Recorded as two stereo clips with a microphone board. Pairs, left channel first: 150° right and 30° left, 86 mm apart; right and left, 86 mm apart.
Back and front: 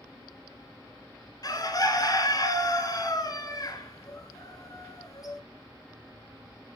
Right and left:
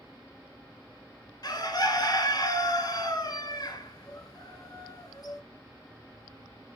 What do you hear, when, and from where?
1.4 s a bird: 115° right, 1.1 m